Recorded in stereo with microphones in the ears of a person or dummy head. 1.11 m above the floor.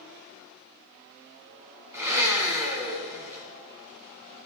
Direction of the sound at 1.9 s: 10° right (ahead or behind).